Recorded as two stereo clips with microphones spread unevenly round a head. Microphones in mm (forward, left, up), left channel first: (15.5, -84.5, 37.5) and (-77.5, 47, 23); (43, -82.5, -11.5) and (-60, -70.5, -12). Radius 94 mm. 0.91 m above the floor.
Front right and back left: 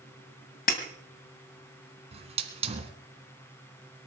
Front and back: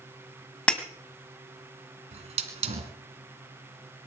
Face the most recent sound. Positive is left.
turn(degrees=180)